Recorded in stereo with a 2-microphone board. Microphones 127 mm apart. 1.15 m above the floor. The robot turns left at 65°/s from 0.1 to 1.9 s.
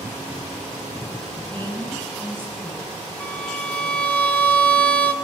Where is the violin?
10° left (ahead or behind), 0.9 m.